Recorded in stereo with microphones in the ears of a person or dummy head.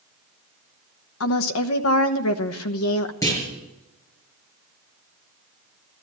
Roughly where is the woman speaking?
Left.